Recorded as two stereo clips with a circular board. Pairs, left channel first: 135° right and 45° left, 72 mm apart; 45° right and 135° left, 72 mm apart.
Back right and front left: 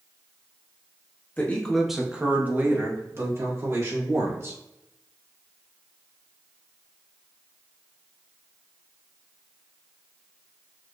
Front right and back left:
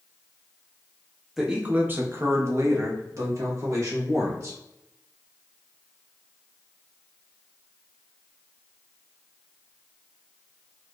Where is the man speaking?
145° right, 0.6 m; by 4.6 s 90° left, 2 m.